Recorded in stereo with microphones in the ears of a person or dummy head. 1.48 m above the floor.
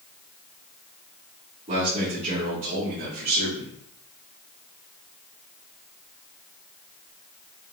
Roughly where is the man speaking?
Right.